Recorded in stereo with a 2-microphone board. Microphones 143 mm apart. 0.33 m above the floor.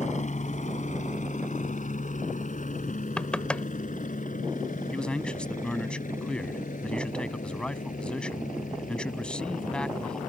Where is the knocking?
10° left (ahead or behind).